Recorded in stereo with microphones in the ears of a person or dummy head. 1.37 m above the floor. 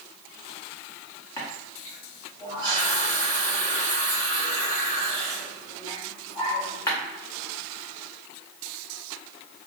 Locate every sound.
1.4 s a running tap: 10° left (ahead or behind), 0.5 m